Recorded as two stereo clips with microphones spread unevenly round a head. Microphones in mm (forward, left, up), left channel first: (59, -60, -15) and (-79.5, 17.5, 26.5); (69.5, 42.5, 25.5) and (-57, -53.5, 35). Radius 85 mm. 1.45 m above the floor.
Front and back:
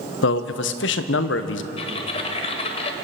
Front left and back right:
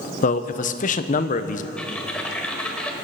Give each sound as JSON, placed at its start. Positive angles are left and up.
{"t": 0.2, "sound": "a man speaking", "azimuth_deg": -5, "distance_m": 0.8}
{"t": 1.8, "sound": "typing on a keyboard", "azimuth_deg": -45, "distance_m": 1.2}